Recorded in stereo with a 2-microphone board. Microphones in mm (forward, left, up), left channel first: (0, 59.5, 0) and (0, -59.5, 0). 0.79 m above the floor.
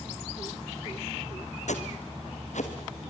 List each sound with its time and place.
1.7 s footsteps: 70° left (ahead or behind), 2.5 m